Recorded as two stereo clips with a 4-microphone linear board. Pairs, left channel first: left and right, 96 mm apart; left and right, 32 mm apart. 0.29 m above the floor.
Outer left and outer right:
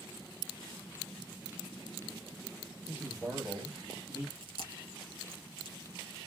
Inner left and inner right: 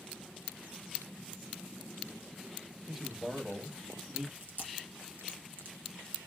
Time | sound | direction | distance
2.9 | a man speaking | 10° right (ahead or behind) | 1.0 m
4.3 | chewing | 80° right | 1.0 m